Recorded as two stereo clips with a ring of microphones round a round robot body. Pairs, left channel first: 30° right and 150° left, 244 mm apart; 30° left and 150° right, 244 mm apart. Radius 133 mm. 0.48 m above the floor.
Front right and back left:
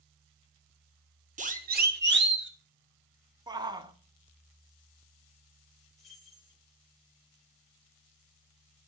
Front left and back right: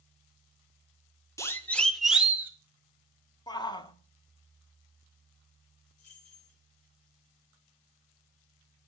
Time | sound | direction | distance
1.4 | a siren | 105° left | 2.5 m
3.5 | a shout | 90° left | 1.5 m
6.0 | keys jangling | 60° left | 6 m